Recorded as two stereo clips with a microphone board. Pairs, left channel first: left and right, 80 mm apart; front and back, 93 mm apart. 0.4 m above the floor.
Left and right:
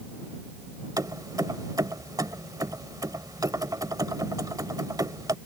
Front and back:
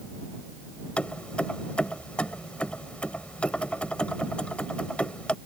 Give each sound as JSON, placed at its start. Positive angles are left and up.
{"t": 1.0, "sound": "keys jangling", "azimuth_deg": -75}